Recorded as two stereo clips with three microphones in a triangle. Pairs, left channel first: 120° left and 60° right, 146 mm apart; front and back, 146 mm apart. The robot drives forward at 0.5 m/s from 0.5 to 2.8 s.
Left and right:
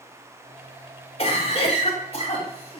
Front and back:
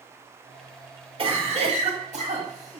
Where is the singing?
I don't hear singing.